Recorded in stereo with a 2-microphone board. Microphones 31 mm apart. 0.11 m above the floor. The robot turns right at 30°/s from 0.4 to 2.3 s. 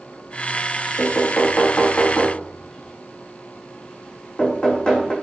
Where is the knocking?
65° left (ahead or behind), 3.5 m; by 5.1 s 30° left (ahead or behind), 3.5 m.